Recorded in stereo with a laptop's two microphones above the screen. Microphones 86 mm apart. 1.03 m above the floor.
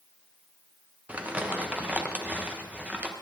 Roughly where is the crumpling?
Centre.